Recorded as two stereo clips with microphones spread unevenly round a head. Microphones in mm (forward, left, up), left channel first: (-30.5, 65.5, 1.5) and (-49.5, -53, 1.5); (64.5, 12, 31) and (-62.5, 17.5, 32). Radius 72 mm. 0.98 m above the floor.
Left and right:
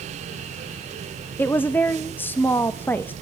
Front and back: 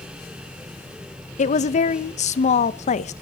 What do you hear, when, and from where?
1.4 s a woman speaking: 5° left, 1.0 m